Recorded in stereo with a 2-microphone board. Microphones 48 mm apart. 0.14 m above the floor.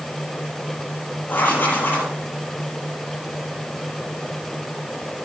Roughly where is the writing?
Left.